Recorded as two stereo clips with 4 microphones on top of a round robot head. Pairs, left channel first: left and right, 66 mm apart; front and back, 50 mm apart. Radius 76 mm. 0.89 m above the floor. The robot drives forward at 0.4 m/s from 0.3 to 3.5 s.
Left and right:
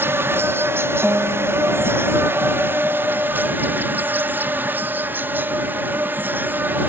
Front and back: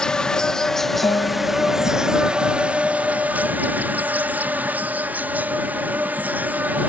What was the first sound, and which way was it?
An insect, 65° right.